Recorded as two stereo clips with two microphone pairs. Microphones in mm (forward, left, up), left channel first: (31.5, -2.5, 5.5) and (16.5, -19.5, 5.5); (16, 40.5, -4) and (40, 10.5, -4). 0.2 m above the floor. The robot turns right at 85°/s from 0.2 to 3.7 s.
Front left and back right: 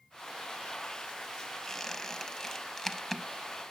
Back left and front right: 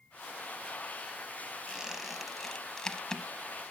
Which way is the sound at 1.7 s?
15° right.